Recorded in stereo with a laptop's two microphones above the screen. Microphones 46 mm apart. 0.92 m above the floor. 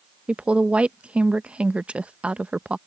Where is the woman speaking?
25° right (ahead or behind).